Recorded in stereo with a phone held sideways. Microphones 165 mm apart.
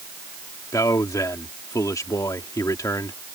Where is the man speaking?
20° left (ahead or behind).